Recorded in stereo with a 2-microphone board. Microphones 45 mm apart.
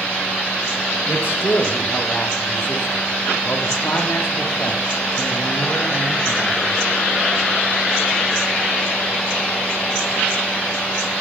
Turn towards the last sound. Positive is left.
turn(degrees=50)  # may be behind; listen again after turning